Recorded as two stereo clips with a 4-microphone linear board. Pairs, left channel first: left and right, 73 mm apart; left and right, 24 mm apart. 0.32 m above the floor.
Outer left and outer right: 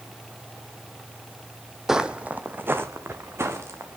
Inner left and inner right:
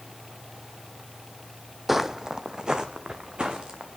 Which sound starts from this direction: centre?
Footsteps, at 1.9 s.